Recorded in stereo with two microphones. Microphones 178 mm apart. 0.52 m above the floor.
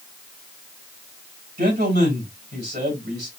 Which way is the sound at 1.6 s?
70° right (ahead or behind).